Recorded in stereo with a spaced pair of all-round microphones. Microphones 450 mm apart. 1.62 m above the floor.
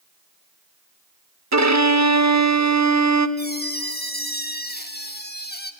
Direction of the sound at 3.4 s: 20° left (ahead or behind).